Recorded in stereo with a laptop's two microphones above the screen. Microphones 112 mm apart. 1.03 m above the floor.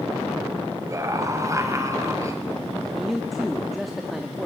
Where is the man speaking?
Centre (ahead or behind), 1.8 m.